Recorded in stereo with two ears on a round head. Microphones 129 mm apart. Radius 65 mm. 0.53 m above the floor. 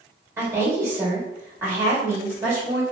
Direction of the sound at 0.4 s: 15° right (ahead or behind).